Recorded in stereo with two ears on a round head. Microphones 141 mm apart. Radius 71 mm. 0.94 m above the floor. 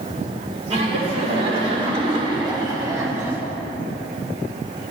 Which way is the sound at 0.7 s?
40° right (ahead or behind).